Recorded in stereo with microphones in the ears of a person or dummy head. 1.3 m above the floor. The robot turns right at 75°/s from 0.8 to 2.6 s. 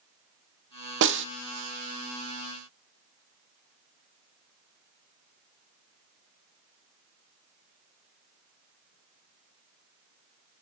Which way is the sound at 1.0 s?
55° right (ahead or behind).